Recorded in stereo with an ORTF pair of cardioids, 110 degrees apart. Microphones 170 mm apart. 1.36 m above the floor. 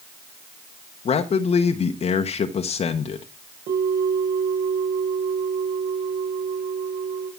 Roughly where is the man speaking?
Ahead left.